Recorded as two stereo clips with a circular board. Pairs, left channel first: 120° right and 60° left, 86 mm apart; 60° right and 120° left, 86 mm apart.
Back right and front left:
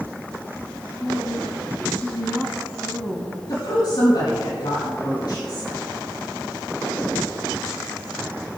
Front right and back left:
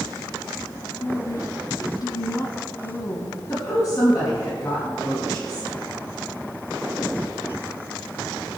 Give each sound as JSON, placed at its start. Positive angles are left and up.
{"t": 1.0, "sound": "a woman speaking", "azimuth_deg": -50, "distance_m": 1.4}
{"t": 3.5, "sound": "a woman speaking", "azimuth_deg": -100, "distance_m": 4.0}